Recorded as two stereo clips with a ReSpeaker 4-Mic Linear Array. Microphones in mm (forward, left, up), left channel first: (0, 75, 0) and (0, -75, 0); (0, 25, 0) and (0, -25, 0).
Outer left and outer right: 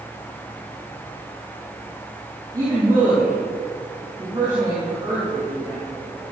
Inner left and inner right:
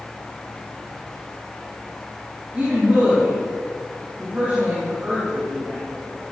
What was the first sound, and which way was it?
A woman speaking, 25° right (ahead or behind).